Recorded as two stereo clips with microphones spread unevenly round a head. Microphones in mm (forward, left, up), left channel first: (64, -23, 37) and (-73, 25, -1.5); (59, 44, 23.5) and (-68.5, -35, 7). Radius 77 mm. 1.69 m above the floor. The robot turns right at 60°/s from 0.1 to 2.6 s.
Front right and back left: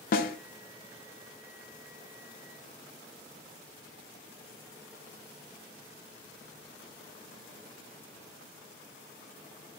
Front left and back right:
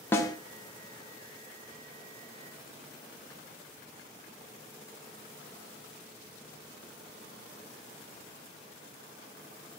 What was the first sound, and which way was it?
A snare drum, 45° right.